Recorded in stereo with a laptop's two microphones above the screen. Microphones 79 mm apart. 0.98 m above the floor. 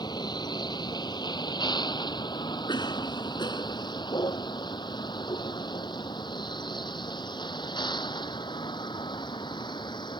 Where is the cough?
70° left (ahead or behind).